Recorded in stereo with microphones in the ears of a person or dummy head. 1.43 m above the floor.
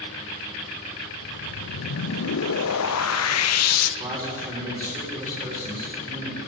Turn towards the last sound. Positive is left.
turn(degrees=-20)  # may be behind; listen again after turning